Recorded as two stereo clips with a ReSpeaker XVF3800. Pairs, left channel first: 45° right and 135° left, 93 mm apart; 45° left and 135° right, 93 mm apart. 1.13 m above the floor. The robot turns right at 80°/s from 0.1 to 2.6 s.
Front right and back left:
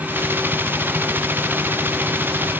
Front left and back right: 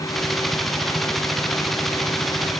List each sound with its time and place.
Only background noise.